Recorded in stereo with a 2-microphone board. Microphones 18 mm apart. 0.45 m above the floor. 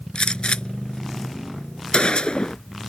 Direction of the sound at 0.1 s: 85° left.